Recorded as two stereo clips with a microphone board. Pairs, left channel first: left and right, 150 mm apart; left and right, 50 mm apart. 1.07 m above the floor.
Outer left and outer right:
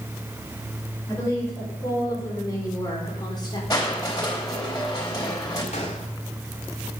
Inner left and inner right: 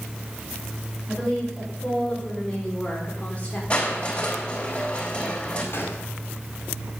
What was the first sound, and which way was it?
A woman speaking, 20° left (ahead or behind).